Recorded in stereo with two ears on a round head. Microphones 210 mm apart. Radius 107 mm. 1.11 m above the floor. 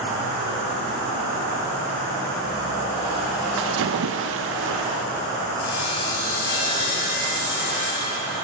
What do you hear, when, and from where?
3.6 s a splash: 60° right (ahead or behind), 0.7 m
5.6 s sawing: 50° left (ahead or behind), 7 m